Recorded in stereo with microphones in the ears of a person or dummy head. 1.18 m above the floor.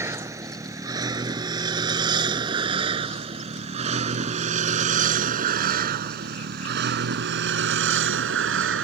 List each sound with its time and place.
0.0 s a vehicle: 15° right (ahead or behind); by 8.8 s 80° right